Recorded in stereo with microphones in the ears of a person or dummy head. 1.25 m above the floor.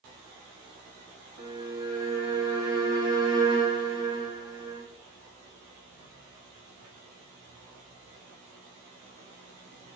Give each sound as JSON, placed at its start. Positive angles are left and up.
{"t": 1.4, "sound": "a violin", "side_deg": -20, "distance_m": 1.1}